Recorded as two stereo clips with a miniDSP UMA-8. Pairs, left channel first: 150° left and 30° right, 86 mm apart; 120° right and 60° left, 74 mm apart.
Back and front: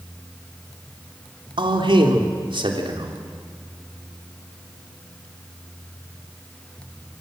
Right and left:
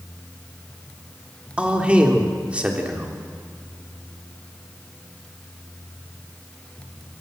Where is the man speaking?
15° right, 3 m.